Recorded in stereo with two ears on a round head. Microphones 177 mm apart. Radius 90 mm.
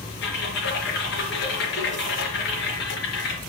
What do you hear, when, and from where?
0.2 s typing on a keyboard: 55° left (ahead or behind), 4 m